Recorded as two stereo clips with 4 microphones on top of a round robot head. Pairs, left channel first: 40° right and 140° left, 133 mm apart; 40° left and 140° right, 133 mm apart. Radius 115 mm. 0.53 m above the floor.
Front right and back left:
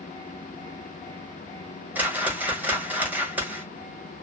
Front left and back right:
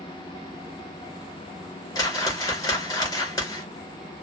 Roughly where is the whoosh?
Left.